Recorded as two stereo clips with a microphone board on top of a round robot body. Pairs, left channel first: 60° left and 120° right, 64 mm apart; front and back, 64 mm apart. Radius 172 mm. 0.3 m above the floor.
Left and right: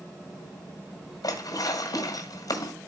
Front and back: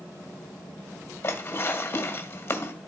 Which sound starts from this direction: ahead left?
Dishes clattering, at 1.2 s.